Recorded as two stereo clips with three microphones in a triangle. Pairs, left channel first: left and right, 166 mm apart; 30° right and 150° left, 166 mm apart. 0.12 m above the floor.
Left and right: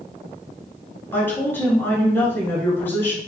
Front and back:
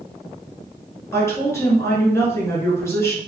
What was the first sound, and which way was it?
A woman speaking, 25° left.